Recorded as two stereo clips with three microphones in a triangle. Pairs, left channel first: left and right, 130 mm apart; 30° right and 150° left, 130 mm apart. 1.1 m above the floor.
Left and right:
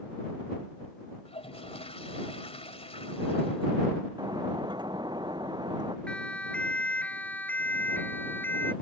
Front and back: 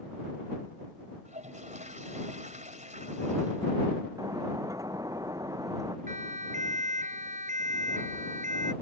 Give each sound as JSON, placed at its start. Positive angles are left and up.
{"t": 1.2, "sound": "a toilet flushing", "azimuth_deg": 130}
{"t": 4.2, "sound": "breaking glass", "azimuth_deg": -145}
{"t": 6.1, "sound": "a siren", "azimuth_deg": 170}